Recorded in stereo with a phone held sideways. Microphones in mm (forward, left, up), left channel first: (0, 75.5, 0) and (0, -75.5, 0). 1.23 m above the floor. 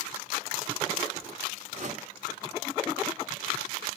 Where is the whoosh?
50° right (ahead or behind), 1.7 m.